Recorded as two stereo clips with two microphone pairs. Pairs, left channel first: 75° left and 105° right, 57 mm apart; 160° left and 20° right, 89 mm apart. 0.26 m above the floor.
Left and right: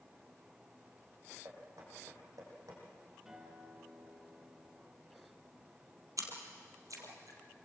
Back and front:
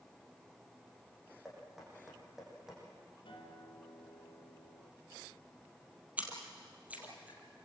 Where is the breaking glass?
I don't hear breaking glass.